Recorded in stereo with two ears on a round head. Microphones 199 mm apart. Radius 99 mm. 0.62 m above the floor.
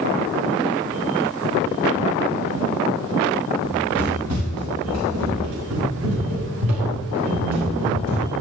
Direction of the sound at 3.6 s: 70° right (ahead or behind).